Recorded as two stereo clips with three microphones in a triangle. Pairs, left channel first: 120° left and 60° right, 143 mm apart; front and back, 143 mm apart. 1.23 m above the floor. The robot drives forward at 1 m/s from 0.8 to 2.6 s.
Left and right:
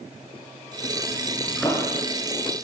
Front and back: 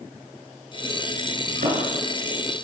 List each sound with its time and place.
1.5 s a thud: 155° right, 8.5 m